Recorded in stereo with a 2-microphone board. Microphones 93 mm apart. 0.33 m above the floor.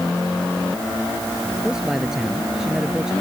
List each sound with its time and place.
1.6 s a man speaking: 5° right (ahead or behind)